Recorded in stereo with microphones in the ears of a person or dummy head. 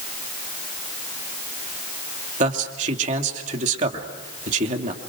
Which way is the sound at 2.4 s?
40° right (ahead or behind).